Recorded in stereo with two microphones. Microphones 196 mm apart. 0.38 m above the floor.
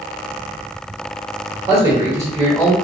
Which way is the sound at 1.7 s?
20° right (ahead or behind).